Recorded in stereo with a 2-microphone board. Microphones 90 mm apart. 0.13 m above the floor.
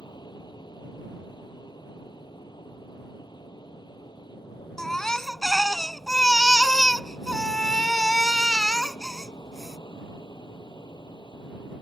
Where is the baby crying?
5° left (ahead or behind).